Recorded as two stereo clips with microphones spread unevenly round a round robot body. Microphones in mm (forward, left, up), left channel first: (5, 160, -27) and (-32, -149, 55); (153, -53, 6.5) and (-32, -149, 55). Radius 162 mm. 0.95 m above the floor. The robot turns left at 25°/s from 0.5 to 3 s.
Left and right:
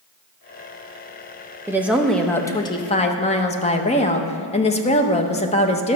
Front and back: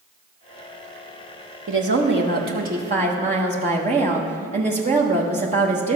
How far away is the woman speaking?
About 0.8 m.